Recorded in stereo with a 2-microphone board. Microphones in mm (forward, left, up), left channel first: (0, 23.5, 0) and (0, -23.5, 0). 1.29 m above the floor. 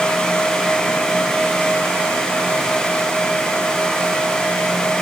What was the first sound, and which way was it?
Only background noise.